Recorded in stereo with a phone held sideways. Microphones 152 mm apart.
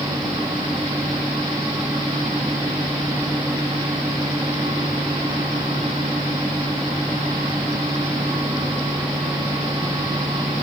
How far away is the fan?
About 4.5 m.